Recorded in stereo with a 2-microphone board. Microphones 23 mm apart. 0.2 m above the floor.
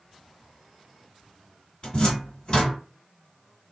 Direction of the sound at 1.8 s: 45° left (ahead or behind).